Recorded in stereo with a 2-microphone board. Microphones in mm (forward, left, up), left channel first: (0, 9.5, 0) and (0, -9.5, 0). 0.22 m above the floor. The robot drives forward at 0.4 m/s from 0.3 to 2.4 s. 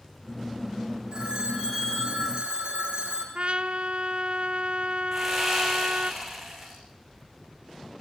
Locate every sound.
1.1 s a phone ringing: 45° right (ahead or behind), 6 m; by 3.2 s 50° right (ahead or behind), 6 m
3.4 s a trumpet: 70° right (ahead or behind), 1.0 m
5.1 s sawing: 15° right (ahead or behind), 8 m